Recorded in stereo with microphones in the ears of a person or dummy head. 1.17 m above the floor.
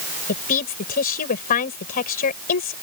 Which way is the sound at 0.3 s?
50° left (ahead or behind).